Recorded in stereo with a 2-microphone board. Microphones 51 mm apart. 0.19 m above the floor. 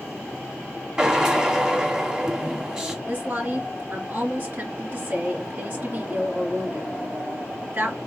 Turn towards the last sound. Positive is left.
turn(degrees=-40)  # may be behind; listen again after turning